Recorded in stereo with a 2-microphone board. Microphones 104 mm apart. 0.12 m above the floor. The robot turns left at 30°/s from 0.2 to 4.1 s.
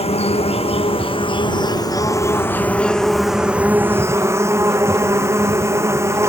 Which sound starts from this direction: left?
An insect, at 0.0 s.